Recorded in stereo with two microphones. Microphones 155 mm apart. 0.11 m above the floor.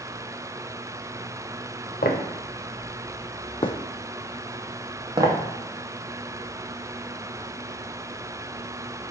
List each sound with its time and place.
2.0 s footsteps: 80° left, 1.1 m; by 5.4 s 30° right (ahead or behind), 1.2 m